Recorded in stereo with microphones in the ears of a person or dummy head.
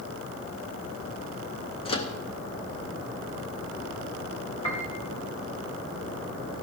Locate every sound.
1.9 s a microwave: 25° left (ahead or behind), 0.8 m
4.6 s a piano: 30° left (ahead or behind), 2.0 m